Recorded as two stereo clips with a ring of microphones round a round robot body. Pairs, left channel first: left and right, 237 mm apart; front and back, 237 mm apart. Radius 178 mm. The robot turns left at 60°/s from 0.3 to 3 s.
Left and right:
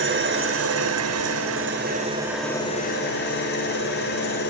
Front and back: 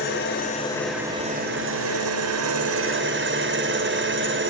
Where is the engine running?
55° right, 3 m; by 4.5 s 145° left, 3 m.